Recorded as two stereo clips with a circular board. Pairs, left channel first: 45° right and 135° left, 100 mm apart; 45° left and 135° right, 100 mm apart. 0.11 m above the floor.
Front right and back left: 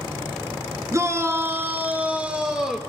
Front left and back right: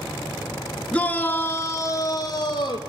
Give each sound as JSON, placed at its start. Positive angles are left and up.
{"t": 0.9, "sound": "a shout", "azimuth_deg": 110, "distance_m": 1.3}